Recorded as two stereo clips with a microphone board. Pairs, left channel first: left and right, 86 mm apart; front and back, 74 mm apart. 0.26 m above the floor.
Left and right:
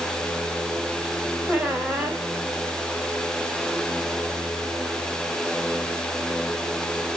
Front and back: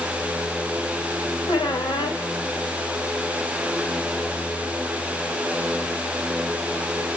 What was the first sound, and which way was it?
A squeak, 10° right.